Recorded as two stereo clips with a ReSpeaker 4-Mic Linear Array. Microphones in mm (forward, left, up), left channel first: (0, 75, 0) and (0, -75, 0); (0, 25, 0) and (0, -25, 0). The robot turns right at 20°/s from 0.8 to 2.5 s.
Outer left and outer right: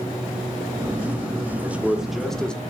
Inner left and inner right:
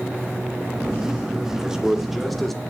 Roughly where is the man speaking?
Centre.